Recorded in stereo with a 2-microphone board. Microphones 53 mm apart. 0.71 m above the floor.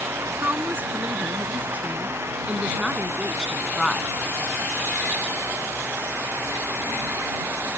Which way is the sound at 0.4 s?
40° right (ahead or behind).